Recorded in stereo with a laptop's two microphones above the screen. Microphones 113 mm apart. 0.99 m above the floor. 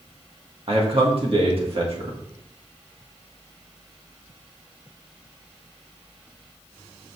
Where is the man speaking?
55° right (ahead or behind), 1.7 m.